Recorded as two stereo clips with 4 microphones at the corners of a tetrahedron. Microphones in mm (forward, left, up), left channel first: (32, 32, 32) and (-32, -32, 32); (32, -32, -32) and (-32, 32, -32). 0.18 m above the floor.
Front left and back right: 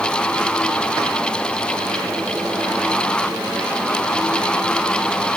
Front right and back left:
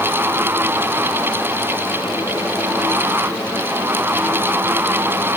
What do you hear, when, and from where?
Only background noise.